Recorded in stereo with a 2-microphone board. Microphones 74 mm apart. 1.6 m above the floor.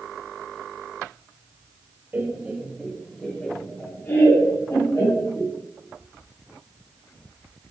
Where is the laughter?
25° right (ahead or behind), 1.7 m; by 5.5 s 45° left (ahead or behind), 3 m.